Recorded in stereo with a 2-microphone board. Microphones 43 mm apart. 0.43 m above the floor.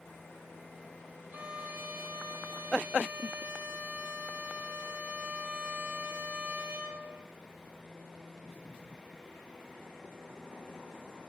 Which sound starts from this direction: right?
A violin, at 1.3 s.